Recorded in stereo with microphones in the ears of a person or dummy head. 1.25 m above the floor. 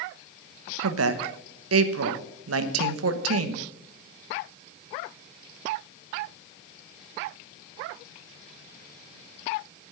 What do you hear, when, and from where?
0.8 s a woman speaking: 80° right, 1.0 m